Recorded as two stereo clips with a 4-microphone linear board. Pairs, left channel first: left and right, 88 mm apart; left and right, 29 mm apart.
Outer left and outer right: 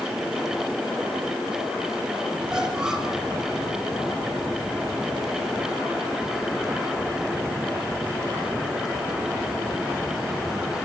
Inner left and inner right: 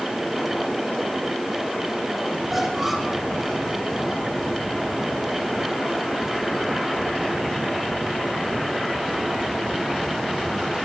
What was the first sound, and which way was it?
A squeak, 5° right (ahead or behind).